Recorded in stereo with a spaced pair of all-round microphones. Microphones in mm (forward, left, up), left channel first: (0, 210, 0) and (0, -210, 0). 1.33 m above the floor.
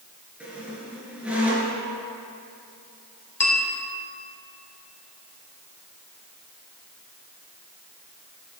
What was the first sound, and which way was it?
A squeak, 5° right (ahead or behind).